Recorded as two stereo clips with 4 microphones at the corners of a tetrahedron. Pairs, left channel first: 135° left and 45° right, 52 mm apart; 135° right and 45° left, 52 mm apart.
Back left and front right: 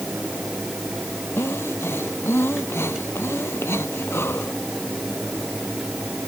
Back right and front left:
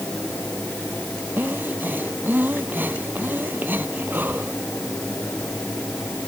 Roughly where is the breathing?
Left.